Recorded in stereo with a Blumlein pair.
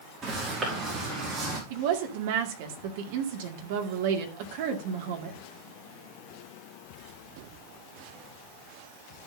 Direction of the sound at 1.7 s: 50° right.